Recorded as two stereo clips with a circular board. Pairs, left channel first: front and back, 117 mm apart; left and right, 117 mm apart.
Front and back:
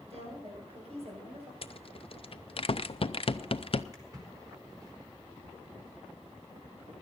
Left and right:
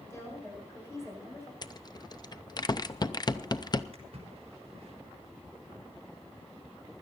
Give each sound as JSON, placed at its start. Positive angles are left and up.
{"t": 0.1, "sound": "a woman speaking", "azimuth_deg": 155, "distance_m": 7.0}
{"t": 1.6, "sound": "a rattle", "azimuth_deg": 35, "distance_m": 0.6}
{"t": 3.9, "sound": "a splash", "azimuth_deg": -125, "distance_m": 3.5}